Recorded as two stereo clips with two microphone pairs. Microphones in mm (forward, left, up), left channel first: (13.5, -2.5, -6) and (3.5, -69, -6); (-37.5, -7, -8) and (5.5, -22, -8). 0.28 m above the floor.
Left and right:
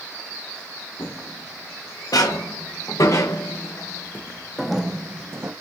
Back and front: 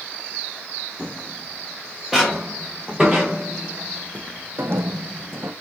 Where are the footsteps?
65° left, 2.0 m; by 5.5 s 60° right, 0.7 m.